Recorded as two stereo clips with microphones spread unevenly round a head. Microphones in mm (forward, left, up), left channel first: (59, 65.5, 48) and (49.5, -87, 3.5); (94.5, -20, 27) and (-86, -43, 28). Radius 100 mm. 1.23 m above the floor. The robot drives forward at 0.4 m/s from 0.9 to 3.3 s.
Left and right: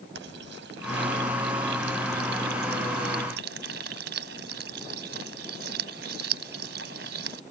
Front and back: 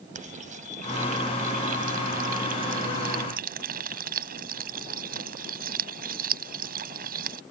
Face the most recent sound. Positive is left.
turn(degrees=-135)